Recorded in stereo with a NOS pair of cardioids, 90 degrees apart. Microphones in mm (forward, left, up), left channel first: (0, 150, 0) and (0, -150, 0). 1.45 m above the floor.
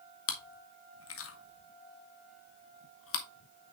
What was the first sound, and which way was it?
Chewing, 50° left.